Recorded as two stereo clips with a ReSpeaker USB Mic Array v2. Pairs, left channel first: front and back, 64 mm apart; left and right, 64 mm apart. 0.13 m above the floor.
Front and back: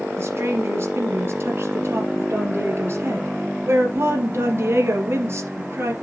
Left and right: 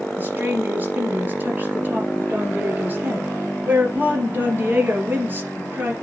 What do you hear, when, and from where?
0.2 s a woman speaking: 140° right, 2.5 m